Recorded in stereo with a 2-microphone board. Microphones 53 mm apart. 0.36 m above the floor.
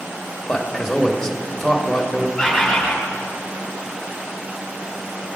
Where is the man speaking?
10° left (ahead or behind), 1.1 m.